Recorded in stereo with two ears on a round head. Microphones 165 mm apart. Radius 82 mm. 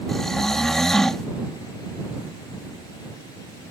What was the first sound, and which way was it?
Snoring, centre (ahead or behind).